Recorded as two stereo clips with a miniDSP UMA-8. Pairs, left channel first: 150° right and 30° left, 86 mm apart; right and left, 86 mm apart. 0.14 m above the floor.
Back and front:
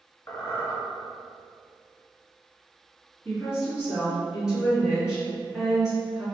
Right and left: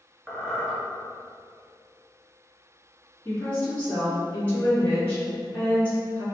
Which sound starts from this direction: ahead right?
A woman speaking, at 3.2 s.